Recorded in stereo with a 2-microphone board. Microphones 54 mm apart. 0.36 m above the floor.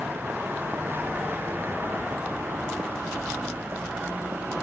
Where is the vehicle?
40° right (ahead or behind).